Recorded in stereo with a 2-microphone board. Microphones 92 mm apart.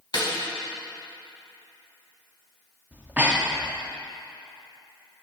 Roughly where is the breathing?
Centre.